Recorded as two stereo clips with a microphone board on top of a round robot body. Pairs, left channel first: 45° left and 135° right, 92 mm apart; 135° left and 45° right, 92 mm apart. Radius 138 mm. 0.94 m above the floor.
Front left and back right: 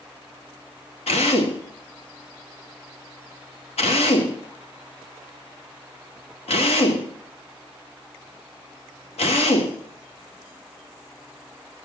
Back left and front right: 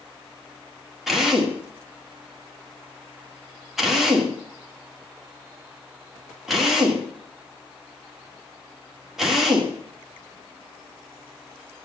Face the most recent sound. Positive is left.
turn(degrees=45)